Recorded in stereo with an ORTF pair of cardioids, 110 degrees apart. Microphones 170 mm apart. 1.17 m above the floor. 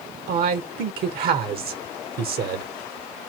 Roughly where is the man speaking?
Right.